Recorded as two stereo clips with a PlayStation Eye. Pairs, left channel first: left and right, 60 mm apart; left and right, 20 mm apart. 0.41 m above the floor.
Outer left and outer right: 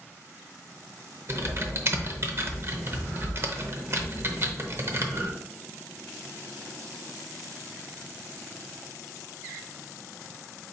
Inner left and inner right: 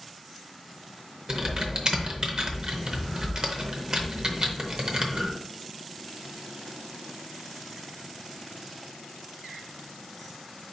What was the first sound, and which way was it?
Typing on a keyboard, 45° right (ahead or behind).